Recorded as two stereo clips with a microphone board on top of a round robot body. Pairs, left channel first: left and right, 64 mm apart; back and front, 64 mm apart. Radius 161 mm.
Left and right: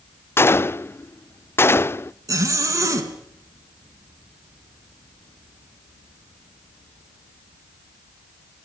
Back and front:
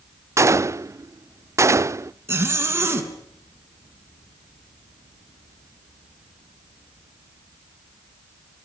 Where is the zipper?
55° right, 3.5 m.